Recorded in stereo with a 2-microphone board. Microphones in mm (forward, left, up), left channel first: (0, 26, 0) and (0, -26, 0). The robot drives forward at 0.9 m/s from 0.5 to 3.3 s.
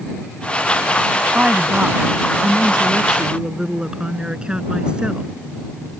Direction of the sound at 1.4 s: 30° right (ahead or behind).